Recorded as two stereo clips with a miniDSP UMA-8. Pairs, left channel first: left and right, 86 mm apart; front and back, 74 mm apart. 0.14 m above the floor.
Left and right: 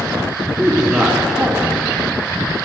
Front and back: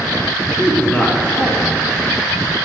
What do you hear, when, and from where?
0.6 s a man speaking: 30° right, 1.3 m